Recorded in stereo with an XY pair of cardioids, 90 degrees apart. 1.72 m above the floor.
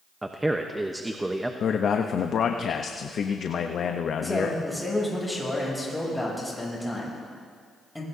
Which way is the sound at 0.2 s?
15° right.